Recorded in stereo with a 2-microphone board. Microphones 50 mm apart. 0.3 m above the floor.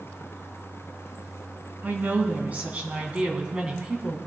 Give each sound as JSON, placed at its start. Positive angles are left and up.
{"t": 1.8, "sound": "a woman speaking", "side_deg": -35, "distance_m": 3.5}